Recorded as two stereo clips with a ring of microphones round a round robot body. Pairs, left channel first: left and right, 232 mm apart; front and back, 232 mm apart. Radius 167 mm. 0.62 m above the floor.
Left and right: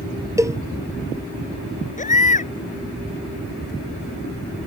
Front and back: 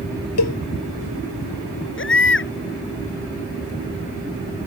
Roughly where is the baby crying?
Ahead left.